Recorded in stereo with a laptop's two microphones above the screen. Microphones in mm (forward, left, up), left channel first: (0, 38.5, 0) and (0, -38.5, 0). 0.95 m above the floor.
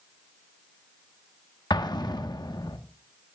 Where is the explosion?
65° left (ahead or behind), 1.3 m.